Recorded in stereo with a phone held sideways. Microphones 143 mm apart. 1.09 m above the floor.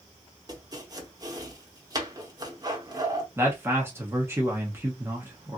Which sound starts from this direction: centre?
A man speaking, at 3.4 s.